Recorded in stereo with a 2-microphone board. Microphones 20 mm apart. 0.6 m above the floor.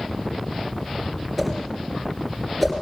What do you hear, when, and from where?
1.4 s a whoosh: centre (ahead or behind), 3 m